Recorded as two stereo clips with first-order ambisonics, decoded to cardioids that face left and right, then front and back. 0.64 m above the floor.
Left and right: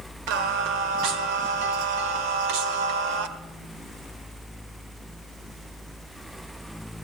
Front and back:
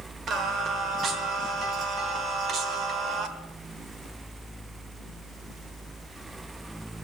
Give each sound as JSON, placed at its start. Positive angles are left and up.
{"t": 0.3, "sound": "singing", "azimuth_deg": -120, "distance_m": 1.4}